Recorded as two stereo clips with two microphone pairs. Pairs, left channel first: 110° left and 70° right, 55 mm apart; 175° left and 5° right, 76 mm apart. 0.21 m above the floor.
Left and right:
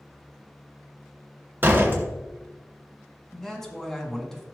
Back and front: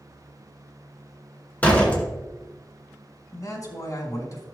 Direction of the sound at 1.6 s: 115° right.